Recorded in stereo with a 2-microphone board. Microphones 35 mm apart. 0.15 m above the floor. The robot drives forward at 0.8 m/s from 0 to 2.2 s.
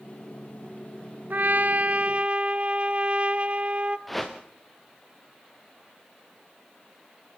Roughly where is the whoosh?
Centre.